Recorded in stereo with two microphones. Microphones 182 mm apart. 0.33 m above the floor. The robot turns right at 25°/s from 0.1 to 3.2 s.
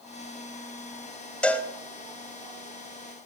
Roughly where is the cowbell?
Centre.